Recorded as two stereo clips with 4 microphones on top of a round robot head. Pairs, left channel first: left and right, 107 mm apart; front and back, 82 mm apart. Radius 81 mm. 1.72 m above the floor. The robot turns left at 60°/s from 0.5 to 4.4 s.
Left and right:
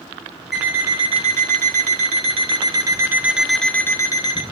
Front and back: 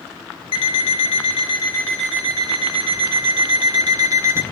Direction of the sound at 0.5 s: Straight ahead.